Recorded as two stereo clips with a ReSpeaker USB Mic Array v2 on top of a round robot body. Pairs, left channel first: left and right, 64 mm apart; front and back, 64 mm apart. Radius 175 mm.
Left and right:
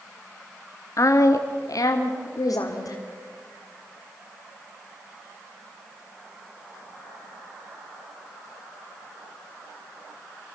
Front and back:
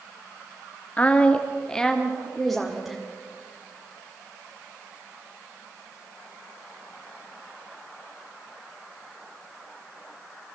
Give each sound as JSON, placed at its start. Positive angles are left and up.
{"t": 1.0, "sound": "a woman speaking", "azimuth_deg": 65, "distance_m": 1.4}